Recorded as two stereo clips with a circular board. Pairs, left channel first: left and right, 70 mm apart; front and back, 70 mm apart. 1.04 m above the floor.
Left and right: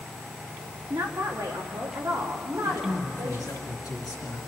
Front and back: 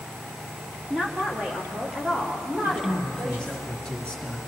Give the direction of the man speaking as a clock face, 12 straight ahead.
9 o'clock.